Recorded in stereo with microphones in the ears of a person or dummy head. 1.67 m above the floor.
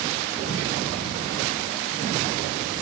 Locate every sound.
Only background noise.